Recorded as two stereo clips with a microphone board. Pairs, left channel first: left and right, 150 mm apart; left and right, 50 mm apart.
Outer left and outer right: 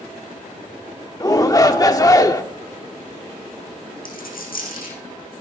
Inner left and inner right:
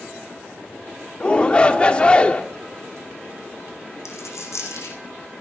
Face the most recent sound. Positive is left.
turn(degrees=75)  # may be behind; listen again after turning